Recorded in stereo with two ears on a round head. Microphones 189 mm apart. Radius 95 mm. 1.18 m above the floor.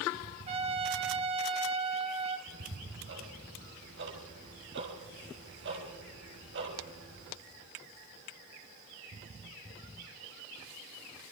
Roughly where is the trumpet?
Right.